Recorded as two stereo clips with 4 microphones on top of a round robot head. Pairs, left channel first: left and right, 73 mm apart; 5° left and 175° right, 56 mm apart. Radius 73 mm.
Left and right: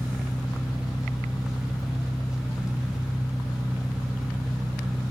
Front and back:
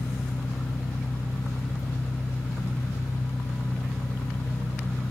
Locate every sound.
0.0 s an engine running: 10° right, 1.2 m